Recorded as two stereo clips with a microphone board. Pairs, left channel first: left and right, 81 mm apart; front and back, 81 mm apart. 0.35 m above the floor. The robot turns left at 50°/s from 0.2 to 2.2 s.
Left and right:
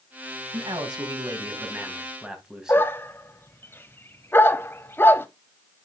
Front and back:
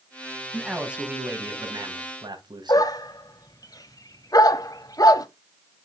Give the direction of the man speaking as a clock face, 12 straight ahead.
3 o'clock.